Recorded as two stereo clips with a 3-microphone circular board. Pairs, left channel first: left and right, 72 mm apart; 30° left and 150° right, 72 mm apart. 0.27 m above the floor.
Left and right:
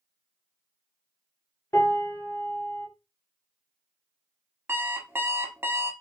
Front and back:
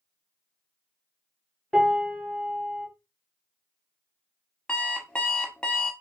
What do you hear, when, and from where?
1.7 s a piano: 130° left, 1.1 m
4.7 s an alarm clock: 40° right, 0.6 m